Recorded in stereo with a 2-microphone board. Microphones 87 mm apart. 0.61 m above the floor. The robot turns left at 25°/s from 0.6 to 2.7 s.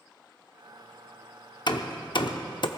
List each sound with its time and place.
1.7 s hammering: 60° left (ahead or behind), 0.7 m